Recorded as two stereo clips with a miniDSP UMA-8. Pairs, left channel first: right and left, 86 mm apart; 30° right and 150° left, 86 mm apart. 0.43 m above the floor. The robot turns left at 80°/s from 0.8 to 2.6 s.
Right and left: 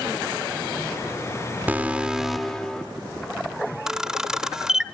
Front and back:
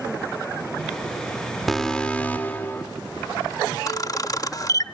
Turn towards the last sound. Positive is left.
turn(degrees=5)